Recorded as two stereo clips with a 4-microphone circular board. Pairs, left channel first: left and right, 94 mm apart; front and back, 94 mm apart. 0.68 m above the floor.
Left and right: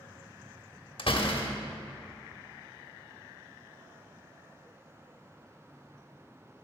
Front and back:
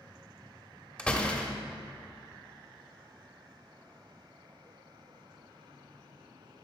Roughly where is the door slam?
Left.